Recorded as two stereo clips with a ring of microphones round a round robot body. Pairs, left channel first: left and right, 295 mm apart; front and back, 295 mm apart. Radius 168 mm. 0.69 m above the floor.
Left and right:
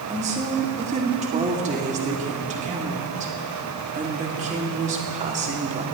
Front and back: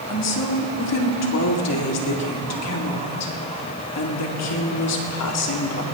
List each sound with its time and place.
0.1 s a woman speaking: 25° right, 2 m